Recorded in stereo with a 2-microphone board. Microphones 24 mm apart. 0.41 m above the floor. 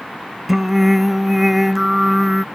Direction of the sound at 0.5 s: 10° right (ahead or behind).